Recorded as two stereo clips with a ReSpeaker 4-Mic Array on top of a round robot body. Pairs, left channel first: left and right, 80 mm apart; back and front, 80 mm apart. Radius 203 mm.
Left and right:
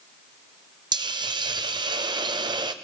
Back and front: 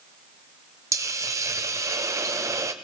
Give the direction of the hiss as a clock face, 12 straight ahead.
2 o'clock.